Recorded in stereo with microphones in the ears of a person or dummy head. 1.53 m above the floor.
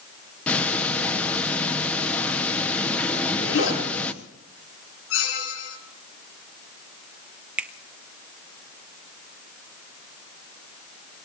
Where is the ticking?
10° left (ahead or behind), 1.1 m.